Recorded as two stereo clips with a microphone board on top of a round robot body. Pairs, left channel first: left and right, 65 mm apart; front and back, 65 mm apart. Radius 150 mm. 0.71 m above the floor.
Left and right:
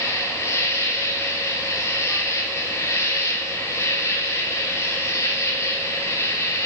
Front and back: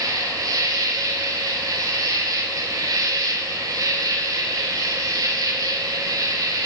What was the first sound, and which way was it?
An insect, 140° left.